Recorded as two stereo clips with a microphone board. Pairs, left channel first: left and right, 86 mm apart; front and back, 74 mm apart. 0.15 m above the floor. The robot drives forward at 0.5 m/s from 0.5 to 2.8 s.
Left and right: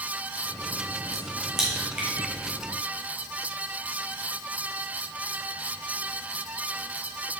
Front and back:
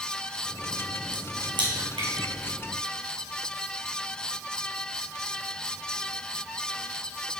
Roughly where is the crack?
Behind.